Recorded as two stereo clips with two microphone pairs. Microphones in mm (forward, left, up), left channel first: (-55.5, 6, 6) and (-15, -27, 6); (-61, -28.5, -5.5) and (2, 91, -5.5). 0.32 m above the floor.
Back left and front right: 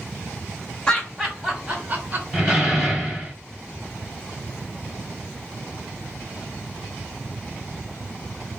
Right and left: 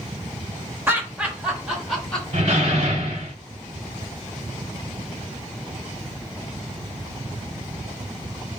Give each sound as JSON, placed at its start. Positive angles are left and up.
{"t": 0.9, "sound": "laughter", "azimuth_deg": 105, "distance_m": 1.1}
{"t": 2.3, "sound": "a door slam", "azimuth_deg": 45, "distance_m": 1.3}